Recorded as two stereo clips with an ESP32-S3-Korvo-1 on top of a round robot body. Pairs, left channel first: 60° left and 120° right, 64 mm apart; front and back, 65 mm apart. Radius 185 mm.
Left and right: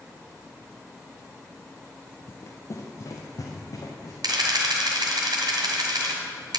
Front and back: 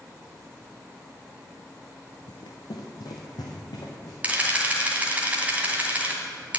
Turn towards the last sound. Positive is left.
turn(degrees=-110)